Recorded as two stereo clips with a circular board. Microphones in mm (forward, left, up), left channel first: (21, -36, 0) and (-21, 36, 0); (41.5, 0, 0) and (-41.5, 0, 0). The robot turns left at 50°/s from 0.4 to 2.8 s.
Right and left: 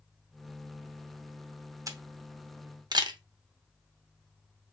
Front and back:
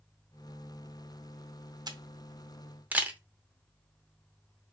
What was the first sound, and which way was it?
A camera shutter, 160° left.